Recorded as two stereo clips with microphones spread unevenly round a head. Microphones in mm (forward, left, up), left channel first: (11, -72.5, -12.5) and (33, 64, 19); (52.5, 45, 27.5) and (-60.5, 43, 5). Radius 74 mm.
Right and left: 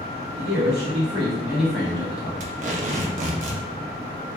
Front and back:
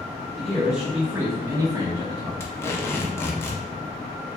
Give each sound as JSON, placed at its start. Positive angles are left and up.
{"t": 0.4, "sound": "a man speaking", "azimuth_deg": 100, "distance_m": 1.0}
{"t": 2.4, "sound": "tape being pulled", "azimuth_deg": 65, "distance_m": 0.5}